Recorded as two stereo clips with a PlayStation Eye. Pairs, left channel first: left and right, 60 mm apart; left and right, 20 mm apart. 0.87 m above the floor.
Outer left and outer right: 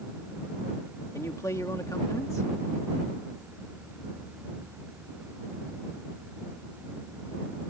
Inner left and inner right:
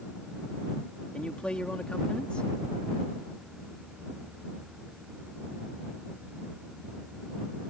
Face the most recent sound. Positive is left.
turn(degrees=60)  # may be behind; listen again after turning